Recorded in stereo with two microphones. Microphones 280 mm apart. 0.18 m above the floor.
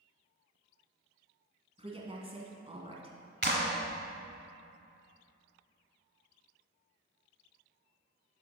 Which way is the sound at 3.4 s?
40° right (ahead or behind).